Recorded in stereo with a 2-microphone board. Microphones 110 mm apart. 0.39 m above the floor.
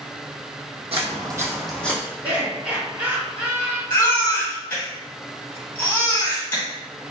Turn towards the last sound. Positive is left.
turn(degrees=20)  # may be behind; listen again after turning